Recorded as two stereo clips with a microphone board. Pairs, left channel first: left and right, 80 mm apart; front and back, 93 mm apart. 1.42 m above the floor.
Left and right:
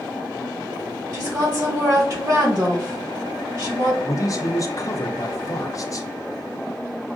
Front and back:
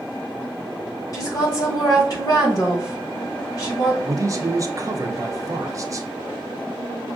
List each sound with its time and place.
1.1 s a woman speaking: 50° right, 1.8 m
4.0 s a man speaking: 130° left, 0.5 m